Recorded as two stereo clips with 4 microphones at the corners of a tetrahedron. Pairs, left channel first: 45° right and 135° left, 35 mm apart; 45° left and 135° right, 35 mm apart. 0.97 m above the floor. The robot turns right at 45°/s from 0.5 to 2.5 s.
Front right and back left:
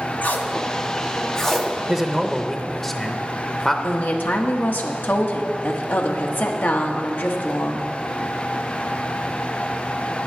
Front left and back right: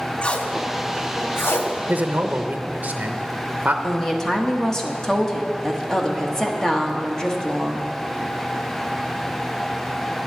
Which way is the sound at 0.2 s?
10° right.